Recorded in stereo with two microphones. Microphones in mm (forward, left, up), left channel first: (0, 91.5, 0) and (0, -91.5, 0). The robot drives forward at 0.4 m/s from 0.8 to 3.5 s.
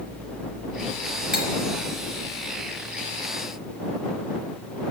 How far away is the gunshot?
I don't hear a gunshot.